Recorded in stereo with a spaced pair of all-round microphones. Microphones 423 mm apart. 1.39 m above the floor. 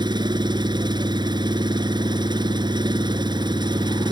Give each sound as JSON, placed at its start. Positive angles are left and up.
{"t": 0.0, "sound": "an engine running", "side_deg": -10}